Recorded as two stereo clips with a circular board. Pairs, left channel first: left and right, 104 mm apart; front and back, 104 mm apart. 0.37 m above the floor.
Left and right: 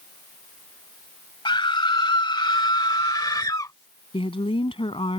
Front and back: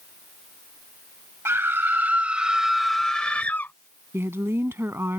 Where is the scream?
120° left; by 3.7 s 55° left.